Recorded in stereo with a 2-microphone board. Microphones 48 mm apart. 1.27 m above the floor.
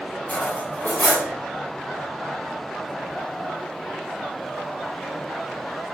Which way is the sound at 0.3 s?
40° left (ahead or behind).